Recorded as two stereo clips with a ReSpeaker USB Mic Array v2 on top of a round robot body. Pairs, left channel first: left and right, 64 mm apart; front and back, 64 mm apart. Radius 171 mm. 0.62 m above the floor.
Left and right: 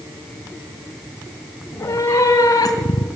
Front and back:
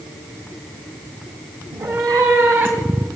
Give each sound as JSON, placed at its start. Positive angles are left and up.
{"t": 1.7, "sound": "a cat meowing", "azimuth_deg": 150, "distance_m": 1.6}